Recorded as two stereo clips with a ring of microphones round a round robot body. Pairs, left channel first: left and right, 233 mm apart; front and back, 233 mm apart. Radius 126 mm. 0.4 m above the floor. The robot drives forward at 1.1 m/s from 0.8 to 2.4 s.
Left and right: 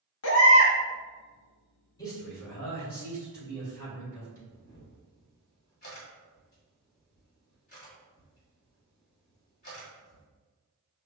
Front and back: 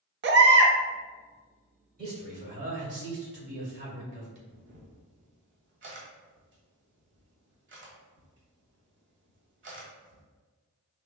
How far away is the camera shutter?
About 1.5 m.